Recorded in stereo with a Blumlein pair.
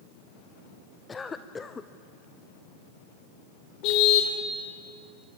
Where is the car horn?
40° left, 3 m.